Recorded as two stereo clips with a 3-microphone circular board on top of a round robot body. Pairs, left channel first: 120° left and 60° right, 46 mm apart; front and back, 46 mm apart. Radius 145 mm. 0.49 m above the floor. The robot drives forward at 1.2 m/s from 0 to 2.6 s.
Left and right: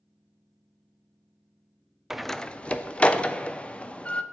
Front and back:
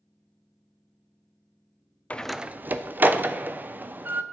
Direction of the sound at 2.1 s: 15° left.